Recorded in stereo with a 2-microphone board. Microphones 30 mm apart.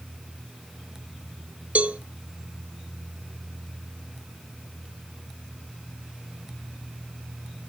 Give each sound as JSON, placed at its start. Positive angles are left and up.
{"t": 1.8, "sound": "a cowbell", "side_deg": -50, "distance_m": 1.1}